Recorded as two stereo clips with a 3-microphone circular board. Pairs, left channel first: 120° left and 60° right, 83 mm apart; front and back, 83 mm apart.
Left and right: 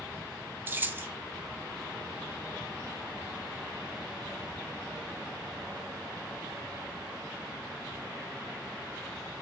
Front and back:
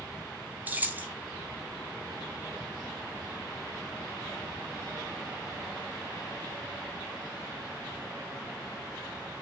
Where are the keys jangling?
115° right, 0.7 m.